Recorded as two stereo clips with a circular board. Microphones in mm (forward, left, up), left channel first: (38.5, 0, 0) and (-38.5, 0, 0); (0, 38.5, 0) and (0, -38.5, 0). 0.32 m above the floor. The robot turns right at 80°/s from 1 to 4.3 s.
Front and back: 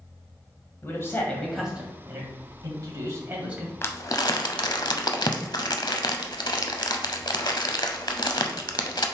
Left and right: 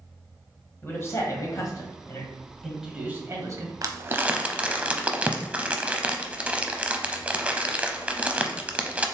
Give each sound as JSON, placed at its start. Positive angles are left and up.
{"t": 0.8, "sound": "a man speaking", "azimuth_deg": 45, "distance_m": 1.6}
{"t": 3.8, "sound": "crumpling", "azimuth_deg": -60, "distance_m": 0.6}